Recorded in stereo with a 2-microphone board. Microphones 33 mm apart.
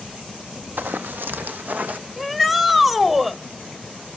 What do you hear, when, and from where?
0.8 s running footsteps: 75° right (ahead or behind), 0.8 m; by 2.0 s 60° right (ahead or behind), 1.1 m
2.2 s a shout: 10° right (ahead or behind), 1.1 m